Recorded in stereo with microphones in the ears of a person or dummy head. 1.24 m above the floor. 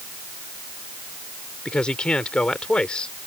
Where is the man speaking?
5° left (ahead or behind).